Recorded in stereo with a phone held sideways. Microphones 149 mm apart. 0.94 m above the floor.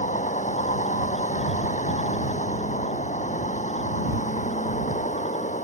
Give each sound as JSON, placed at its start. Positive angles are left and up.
{"t": 0.0, "sound": "a vehicle", "side_deg": 55}